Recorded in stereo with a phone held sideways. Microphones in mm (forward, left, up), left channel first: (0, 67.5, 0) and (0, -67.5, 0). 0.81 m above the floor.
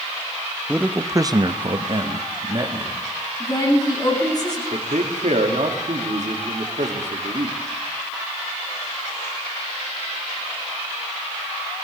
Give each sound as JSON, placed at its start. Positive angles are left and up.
{"t": 0.7, "sound": "a man speaking", "side_deg": -10, "distance_m": 0.8}
{"t": 3.4, "sound": "a woman speaking", "side_deg": 35, "distance_m": 6.5}
{"t": 4.7, "sound": "a man speaking", "side_deg": -65, "distance_m": 1.8}